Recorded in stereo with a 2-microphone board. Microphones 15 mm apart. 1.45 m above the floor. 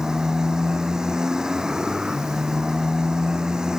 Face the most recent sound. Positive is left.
turn(degrees=-40)  # may be behind; listen again after turning